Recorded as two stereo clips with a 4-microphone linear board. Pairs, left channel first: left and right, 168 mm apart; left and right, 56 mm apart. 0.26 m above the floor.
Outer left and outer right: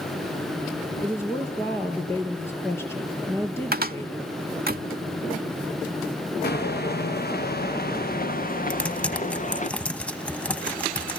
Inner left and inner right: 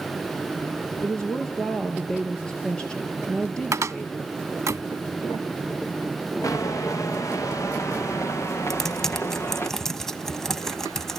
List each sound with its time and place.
1.0 s a woman speaking: 15° left (ahead or behind), 4 m
3.7 s a cupboard door: 70° right (ahead or behind), 0.6 m
6.4 s footsteps: 85° left, 3 m; by 9.7 s 50° left (ahead or behind), 3 m
8.7 s typing on a keyboard: 5° left (ahead or behind), 1.0 m